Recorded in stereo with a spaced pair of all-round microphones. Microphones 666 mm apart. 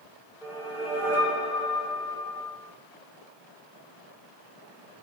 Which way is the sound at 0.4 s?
5° right (ahead or behind).